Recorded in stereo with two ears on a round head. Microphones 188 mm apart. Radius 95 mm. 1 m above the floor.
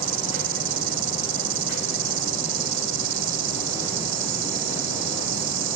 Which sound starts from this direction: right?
An insect, at 0.0 s.